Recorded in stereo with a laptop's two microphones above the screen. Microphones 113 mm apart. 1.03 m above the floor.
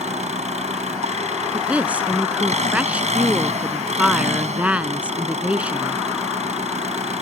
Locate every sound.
0.0 s an engine running: 85° right
1.5 s a woman speaking: 10° right (ahead or behind)